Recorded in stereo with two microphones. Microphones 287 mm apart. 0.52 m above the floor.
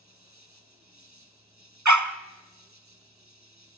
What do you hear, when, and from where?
0.0 s an insect: 70° right (ahead or behind), 1.9 m
1.9 s a dog barking: 80° right, 0.8 m